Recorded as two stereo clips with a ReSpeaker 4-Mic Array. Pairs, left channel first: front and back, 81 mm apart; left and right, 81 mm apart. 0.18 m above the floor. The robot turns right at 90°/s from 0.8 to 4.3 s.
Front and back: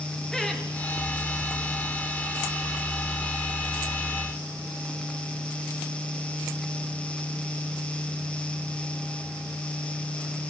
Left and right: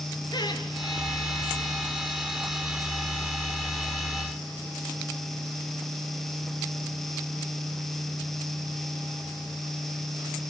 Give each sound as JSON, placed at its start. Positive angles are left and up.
{"t": 0.3, "sound": "laughter", "azimuth_deg": 80, "distance_m": 3.5}